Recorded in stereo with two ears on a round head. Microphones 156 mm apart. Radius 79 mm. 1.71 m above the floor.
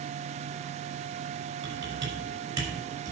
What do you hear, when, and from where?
1.6 s typing on a keyboard: 25° right (ahead or behind), 5.5 m